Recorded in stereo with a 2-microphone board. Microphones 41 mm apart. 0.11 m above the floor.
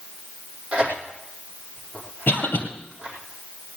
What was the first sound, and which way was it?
Tearing paper, 25° right (ahead or behind).